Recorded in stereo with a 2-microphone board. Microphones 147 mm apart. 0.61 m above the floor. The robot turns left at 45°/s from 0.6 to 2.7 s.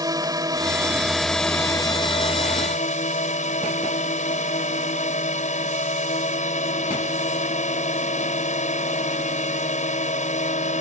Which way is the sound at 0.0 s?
150° right.